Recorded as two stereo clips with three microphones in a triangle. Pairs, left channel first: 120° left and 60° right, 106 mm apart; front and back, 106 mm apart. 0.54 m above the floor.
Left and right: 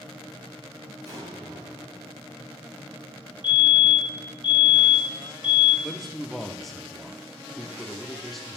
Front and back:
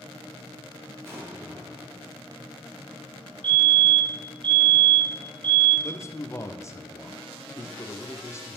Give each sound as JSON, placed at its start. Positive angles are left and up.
{"t": 1.1, "sound": "an explosion", "azimuth_deg": -115, "distance_m": 4.0}
{"t": 3.4, "sound": "a fire alarm", "azimuth_deg": 150, "distance_m": 3.5}
{"t": 5.8, "sound": "a man speaking", "azimuth_deg": 30, "distance_m": 0.8}